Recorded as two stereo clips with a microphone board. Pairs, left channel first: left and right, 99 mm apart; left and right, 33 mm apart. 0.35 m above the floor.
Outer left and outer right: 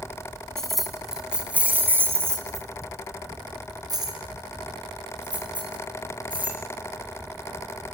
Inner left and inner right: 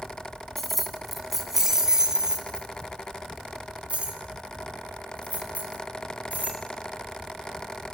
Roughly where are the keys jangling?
Centre.